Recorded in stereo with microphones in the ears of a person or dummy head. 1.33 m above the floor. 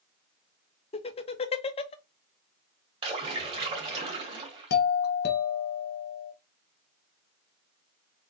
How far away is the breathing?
I don't hear breathing.